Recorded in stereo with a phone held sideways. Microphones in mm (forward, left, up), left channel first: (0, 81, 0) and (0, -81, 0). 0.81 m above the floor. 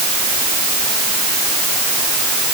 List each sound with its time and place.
Only background noise.